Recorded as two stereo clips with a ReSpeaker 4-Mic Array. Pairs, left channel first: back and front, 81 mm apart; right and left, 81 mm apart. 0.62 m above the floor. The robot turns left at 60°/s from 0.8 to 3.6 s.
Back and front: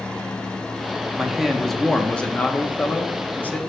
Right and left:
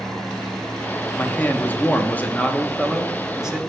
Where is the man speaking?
65° right, 0.6 m; by 3.6 s 150° left, 0.6 m.